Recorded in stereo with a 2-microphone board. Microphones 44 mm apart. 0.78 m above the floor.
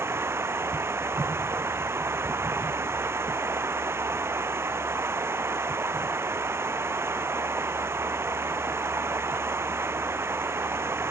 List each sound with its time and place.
0.0 s running water: 65° right (ahead or behind)